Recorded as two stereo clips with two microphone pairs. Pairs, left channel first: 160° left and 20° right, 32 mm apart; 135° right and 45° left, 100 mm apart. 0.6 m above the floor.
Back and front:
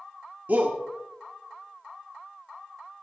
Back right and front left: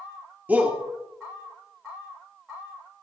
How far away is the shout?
About 1.3 m.